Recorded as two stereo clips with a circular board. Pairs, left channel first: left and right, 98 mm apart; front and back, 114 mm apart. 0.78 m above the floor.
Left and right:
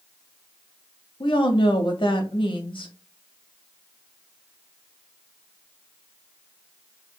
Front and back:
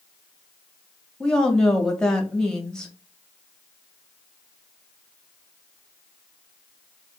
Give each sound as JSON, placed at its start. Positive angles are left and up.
{"t": 1.2, "sound": "a woman speaking", "azimuth_deg": 85, "distance_m": 1.4}